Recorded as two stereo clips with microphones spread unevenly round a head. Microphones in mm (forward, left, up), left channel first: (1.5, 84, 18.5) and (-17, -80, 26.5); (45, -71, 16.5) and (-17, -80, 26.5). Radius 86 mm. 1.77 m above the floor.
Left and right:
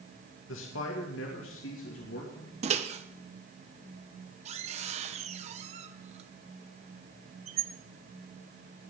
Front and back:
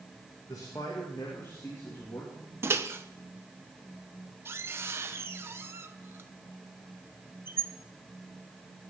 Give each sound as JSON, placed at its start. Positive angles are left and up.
{"t": 0.5, "sound": "a man speaking", "azimuth_deg": 70, "distance_m": 2.5}
{"t": 2.6, "sound": "a microwave", "azimuth_deg": -140, "distance_m": 1.0}